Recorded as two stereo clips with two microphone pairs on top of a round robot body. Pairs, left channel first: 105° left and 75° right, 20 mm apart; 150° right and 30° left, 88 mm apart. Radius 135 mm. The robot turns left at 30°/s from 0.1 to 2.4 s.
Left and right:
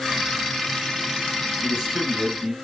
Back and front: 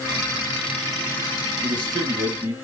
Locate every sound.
1.6 s a man speaking: 5° right, 4 m; by 2.5 s 30° right, 4 m